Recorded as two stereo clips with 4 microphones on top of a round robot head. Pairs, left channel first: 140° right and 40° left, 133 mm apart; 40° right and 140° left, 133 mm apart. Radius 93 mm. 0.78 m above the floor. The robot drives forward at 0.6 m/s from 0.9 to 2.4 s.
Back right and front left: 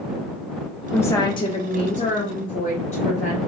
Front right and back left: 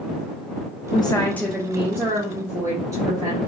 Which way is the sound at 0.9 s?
65° right.